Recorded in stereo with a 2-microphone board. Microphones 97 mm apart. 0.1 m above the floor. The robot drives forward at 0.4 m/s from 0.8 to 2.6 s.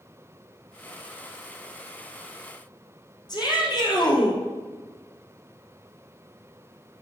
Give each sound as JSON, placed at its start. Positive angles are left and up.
{"t": 3.3, "sound": "a shout", "side_deg": 50, "distance_m": 3.0}